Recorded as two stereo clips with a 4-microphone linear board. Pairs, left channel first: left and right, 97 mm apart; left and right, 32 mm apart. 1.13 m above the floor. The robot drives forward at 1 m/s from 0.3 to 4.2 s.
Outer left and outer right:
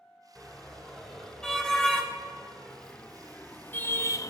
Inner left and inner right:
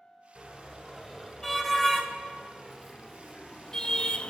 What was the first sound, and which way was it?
A car horn, 5° left (ahead or behind).